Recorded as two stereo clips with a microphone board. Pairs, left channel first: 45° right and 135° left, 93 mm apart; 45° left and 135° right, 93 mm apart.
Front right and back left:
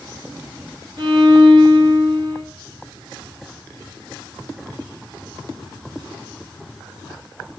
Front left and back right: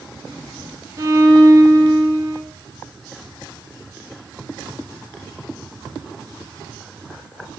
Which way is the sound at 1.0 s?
165° left.